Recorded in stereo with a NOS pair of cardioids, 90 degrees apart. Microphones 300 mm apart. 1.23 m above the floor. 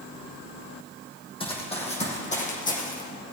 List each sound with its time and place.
1.4 s running footsteps: 20° left, 4 m; by 3.0 s 30° left, 4 m